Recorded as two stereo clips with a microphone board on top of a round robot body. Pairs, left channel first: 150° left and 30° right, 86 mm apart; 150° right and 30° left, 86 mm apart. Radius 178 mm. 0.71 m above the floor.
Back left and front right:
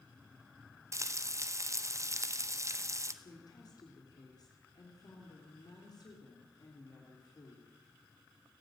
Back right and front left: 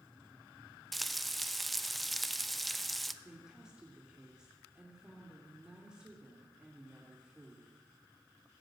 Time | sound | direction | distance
0.9 | frying | 60° right | 1.3 m
3.2 | a woman speaking | 110° left | 3 m